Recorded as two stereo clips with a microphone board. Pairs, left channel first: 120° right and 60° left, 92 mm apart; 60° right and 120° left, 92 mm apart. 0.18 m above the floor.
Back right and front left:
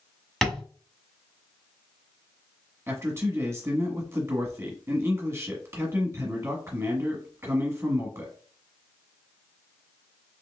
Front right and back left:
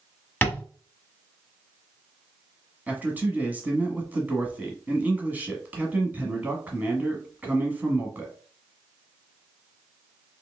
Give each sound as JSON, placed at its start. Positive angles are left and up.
{"t": 0.4, "sound": "tapping", "azimuth_deg": -50, "distance_m": 1.3}
{"t": 2.9, "sound": "a man speaking", "azimuth_deg": 70, "distance_m": 1.3}